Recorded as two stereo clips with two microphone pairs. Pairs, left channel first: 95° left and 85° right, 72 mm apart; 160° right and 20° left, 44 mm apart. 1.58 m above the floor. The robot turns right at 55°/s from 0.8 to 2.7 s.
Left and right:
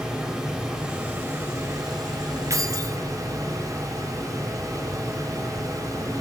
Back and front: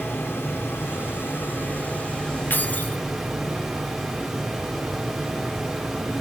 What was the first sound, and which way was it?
Running water, 170° right.